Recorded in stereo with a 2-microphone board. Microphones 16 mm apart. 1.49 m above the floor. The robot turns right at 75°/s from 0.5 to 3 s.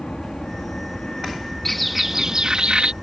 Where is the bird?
165° left; by 2.9 s 100° right.